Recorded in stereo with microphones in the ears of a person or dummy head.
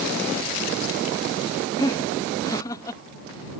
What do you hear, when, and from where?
1.8 s laughter: 20° left (ahead or behind)